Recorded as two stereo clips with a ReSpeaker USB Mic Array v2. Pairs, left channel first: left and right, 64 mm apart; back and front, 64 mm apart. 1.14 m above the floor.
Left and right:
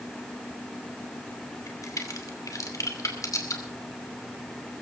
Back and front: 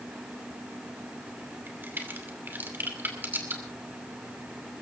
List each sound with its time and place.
1.7 s a crack: 60° left, 2.5 m